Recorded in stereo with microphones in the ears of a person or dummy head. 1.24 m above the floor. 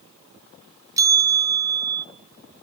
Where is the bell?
15° right (ahead or behind), 0.6 m.